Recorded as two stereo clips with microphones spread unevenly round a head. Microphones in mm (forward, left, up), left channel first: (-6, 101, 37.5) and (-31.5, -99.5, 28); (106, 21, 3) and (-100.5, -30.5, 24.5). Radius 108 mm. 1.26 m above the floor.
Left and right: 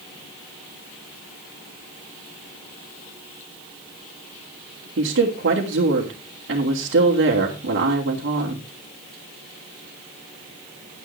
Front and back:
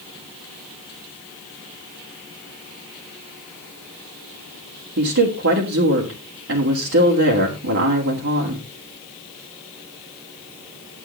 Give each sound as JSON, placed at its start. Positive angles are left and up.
{"t": 5.0, "sound": "a woman speaking", "azimuth_deg": -130, "distance_m": 2.5}